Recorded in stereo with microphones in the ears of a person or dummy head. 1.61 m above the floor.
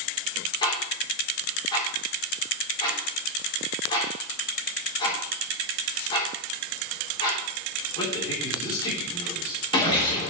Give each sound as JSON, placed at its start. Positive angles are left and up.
{"t": 0.6, "sound": "ticking", "side_deg": 20, "distance_m": 3.0}